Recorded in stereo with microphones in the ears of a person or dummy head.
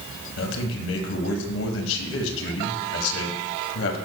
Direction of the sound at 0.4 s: 75° left (ahead or behind).